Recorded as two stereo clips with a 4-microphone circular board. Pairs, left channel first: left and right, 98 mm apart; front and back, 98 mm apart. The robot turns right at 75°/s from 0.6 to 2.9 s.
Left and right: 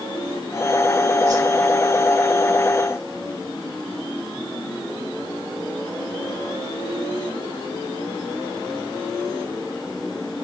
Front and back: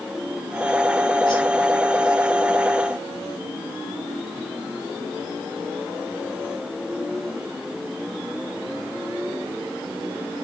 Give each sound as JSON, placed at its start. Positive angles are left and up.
{"t": 1.3, "sound": "a whoosh", "azimuth_deg": -40, "distance_m": 7.0}